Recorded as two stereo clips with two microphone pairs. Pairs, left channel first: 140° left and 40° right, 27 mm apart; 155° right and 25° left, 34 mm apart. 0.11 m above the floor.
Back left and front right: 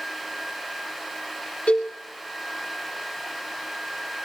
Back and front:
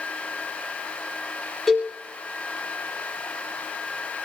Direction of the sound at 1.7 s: 120° left.